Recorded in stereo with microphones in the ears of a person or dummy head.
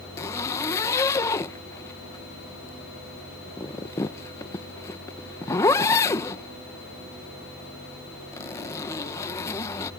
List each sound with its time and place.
0.2 s a zipper: 10° left (ahead or behind)